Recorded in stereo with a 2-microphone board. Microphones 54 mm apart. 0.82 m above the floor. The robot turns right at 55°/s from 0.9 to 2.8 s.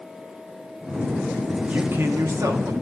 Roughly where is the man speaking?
Behind right.